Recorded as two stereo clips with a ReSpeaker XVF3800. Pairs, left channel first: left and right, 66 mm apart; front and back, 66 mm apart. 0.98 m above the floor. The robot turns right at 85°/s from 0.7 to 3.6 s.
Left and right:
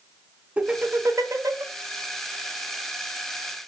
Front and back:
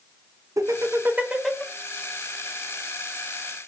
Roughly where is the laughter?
Behind right.